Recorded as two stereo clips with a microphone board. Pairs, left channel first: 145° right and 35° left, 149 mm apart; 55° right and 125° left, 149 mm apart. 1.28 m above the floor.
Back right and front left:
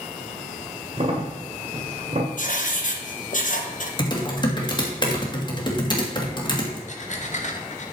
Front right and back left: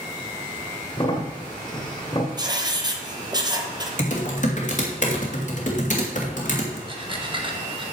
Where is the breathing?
Straight behind, 1.2 m.